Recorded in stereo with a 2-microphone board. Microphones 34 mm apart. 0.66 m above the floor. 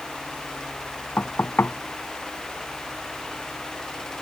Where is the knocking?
85° left.